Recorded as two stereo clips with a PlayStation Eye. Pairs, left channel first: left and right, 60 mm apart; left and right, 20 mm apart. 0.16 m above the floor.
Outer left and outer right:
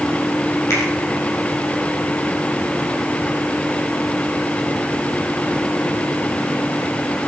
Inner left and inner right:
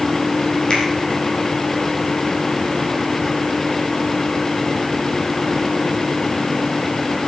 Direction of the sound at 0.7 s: 50° left (ahead or behind).